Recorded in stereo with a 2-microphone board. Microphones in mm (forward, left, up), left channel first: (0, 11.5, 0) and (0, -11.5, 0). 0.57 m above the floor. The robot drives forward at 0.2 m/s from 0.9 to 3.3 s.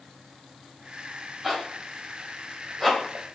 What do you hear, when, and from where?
1.4 s a zipper: 5° right (ahead or behind), 1.0 m; by 3.2 s 10° right (ahead or behind), 0.7 m